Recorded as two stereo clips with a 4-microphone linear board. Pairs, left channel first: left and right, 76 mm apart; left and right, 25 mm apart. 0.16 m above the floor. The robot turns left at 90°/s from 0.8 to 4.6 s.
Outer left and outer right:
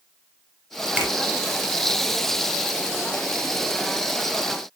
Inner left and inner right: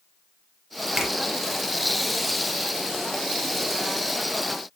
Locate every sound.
1.0 s a finger snap: 15° right (ahead or behind), 1.4 m; by 1.1 s 30° right (ahead or behind), 1.4 m